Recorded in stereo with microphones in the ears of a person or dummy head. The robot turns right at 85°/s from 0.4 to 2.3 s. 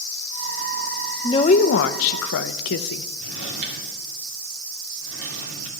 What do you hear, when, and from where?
1.2 s a woman speaking: 20° left, 0.6 m; by 3.1 s 110° left, 0.6 m
3.2 s a drawer: 65° right (ahead or behind), 2.5 m